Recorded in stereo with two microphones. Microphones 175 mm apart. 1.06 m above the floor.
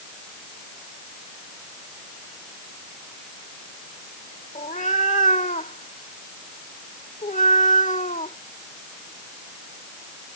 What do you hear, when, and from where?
4.5 s a cat meowing: 45° left (ahead or behind)